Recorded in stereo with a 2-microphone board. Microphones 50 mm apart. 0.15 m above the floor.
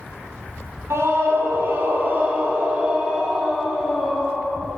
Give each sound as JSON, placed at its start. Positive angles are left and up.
{"t": 0.9, "sound": "a scream", "side_deg": -60, "distance_m": 4.0}